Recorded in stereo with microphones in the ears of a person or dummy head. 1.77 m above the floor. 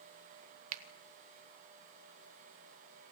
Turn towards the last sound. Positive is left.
turn(degrees=-35)  # may be behind; listen again after turning